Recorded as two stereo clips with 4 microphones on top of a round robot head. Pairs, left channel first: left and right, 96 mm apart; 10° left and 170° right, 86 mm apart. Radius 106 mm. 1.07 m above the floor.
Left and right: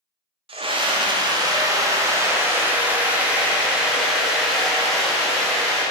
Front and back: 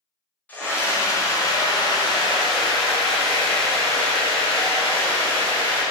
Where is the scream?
65° right, 1.7 m; by 5.8 s 5° left, 3.5 m.